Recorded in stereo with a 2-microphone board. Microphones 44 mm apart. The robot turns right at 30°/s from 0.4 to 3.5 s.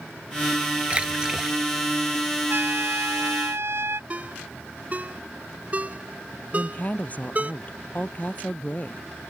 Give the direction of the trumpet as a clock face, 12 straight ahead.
4 o'clock.